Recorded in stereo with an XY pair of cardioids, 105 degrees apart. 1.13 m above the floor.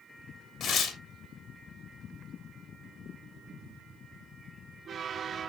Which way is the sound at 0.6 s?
65° left.